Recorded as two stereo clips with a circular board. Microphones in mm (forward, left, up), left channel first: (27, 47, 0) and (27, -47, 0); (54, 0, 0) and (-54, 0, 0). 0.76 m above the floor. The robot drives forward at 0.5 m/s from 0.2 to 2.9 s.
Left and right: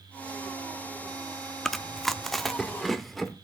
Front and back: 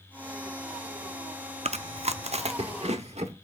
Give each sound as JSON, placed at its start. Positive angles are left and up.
{"t": 1.6, "sound": "chewing", "azimuth_deg": 180, "distance_m": 0.6}